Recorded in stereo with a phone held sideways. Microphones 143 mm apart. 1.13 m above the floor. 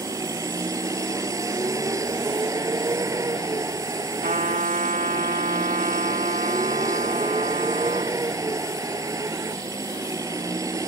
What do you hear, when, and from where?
0.0 s a vehicle: 20° right (ahead or behind)
4.2 s a trumpet: 70° right (ahead or behind)